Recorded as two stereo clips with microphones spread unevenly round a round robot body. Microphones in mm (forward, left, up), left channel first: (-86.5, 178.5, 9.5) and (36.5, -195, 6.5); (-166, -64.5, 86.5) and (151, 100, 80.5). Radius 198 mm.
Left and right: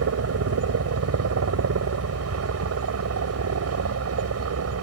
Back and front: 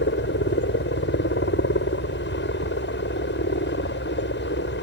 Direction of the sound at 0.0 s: 105° right.